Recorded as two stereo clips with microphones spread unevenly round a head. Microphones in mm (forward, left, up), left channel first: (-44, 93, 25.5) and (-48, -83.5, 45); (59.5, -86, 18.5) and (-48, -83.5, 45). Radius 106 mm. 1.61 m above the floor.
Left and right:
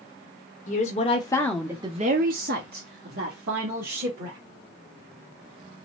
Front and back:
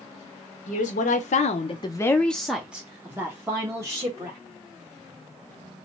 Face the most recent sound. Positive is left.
turn(degrees=-125)